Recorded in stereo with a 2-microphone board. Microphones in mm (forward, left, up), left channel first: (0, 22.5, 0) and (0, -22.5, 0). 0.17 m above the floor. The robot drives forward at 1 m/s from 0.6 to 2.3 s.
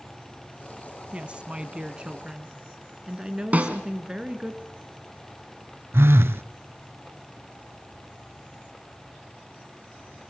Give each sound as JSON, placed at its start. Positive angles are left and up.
{"t": 1.1, "sound": "a woman speaking", "side_deg": -25, "distance_m": 1.2}
{"t": 3.5, "sound": "a snare drum", "side_deg": -35, "distance_m": 1.8}
{"t": 5.9, "sound": "a phone buzzing", "side_deg": -65, "distance_m": 0.5}